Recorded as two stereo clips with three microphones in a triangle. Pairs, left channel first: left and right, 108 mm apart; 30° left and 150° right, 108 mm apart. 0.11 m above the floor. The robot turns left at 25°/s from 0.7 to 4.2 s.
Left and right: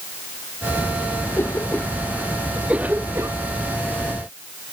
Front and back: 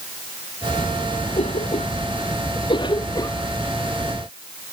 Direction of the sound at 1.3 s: 25° left.